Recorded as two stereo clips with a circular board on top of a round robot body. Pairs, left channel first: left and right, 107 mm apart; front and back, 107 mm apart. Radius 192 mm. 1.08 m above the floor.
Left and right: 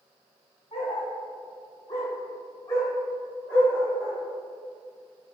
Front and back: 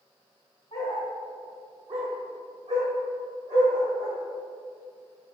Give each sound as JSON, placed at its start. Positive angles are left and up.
{"t": 0.7, "sound": "a dog barking", "azimuth_deg": 40, "distance_m": 0.9}